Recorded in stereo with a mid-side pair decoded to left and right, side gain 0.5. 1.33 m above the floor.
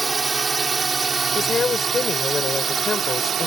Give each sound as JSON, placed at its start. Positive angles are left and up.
{"t": 0.0, "sound": "a drone", "azimuth_deg": -20}
{"t": 1.4, "sound": "a woman speaking", "azimuth_deg": 40}